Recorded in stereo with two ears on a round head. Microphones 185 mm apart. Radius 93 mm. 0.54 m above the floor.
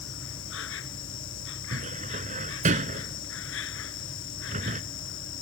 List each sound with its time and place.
0.0 s an insect: 65° left (ahead or behind)
1.7 s a cupboard door: 35° right (ahead or behind)